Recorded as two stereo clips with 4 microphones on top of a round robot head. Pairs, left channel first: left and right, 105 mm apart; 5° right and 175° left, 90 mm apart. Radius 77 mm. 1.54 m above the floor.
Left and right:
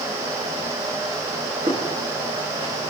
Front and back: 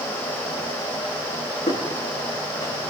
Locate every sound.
1.7 s footsteps: 35° right, 7 m